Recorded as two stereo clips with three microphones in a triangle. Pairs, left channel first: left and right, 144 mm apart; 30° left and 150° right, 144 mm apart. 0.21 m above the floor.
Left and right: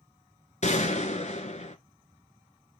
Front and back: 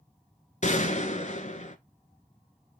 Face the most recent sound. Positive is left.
turn(degrees=60)